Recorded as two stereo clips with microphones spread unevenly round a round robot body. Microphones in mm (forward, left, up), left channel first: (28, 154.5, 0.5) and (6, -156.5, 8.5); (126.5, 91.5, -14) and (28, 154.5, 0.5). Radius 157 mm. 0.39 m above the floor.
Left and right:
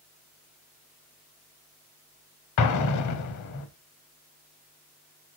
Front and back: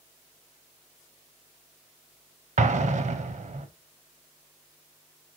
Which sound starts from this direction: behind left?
An explosion, at 2.6 s.